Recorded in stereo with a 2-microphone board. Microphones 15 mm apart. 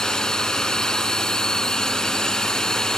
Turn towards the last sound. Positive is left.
turn(degrees=45)  # may be behind; listen again after turning